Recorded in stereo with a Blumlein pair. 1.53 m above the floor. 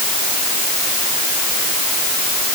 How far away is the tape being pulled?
I don't hear tape being pulled.